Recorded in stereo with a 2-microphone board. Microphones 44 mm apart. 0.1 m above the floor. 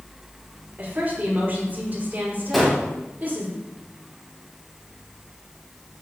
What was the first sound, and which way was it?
A woman speaking, 40° right (ahead or behind).